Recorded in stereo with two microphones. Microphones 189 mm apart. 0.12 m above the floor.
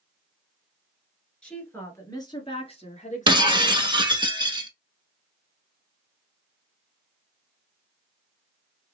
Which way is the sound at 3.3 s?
25° right (ahead or behind).